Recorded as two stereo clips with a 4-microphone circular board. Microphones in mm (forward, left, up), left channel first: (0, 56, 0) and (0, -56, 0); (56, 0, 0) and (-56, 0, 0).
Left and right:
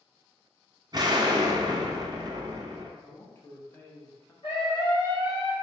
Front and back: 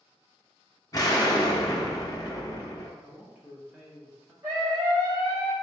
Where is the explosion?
50° right, 0.6 m.